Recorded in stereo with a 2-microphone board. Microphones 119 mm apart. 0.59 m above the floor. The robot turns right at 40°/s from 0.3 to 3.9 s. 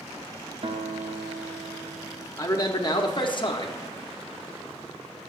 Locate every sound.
0.6 s a guitar: 115° right, 0.5 m; by 2.3 s 50° right, 0.5 m
2.4 s a man speaking: 40° left, 0.7 m; by 3.8 s 100° left, 0.7 m